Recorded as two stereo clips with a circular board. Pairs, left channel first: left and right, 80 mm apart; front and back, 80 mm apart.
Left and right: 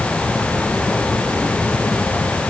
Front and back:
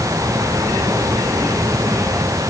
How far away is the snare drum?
I don't hear a snare drum.